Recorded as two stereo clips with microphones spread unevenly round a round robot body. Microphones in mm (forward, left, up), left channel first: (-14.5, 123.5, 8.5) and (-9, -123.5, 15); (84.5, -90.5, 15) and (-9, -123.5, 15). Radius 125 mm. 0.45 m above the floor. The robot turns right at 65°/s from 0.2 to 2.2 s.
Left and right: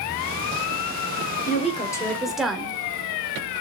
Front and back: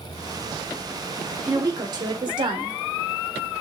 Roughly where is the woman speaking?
Behind left.